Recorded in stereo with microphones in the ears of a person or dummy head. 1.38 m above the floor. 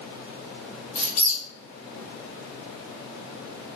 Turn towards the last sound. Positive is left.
turn(degrees=40)  # may be behind; listen again after turning